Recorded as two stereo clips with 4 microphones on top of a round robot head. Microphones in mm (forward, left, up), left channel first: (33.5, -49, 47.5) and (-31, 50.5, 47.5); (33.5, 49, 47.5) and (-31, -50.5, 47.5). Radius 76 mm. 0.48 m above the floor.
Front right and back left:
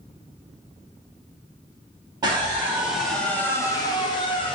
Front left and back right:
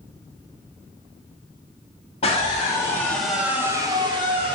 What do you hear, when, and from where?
2.2 s a scream: 70° left, 1.3 m; by 4.5 s 95° right, 1.5 m